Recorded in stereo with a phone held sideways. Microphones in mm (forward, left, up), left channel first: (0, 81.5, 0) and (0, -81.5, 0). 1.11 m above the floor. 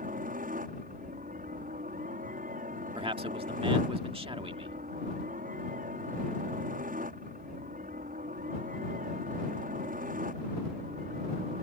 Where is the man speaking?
35° right (ahead or behind).